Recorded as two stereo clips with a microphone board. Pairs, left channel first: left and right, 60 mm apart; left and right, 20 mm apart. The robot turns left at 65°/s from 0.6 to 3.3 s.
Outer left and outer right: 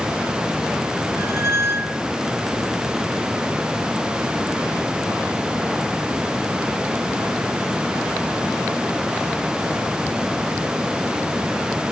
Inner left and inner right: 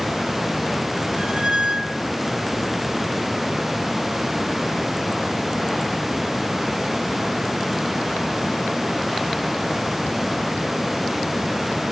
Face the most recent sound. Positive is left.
turn(degrees=135)